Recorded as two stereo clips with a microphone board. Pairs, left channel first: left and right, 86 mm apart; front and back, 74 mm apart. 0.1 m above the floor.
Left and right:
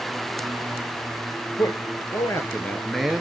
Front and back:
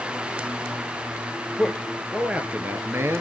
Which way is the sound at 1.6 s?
90° left.